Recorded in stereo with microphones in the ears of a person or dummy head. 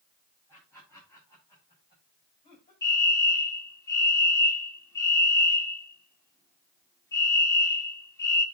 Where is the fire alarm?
15° left (ahead or behind), 2 m.